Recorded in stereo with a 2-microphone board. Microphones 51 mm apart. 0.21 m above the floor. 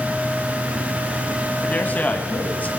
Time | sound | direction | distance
1.6 | a man speaking | 30° left (ahead or behind) | 1.9 m